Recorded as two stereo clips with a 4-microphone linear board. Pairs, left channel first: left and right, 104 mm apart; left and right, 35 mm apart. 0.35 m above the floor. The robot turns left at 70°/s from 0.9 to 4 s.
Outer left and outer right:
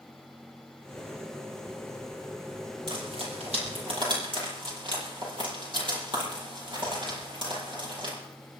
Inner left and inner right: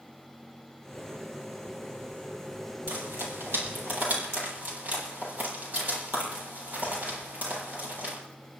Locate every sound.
2.9 s frying: 50° right (ahead or behind), 9 m